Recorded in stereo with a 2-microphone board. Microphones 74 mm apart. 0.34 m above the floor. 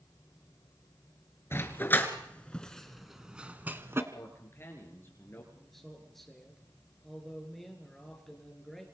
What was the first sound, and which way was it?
A dog barking, 35° left (ahead or behind).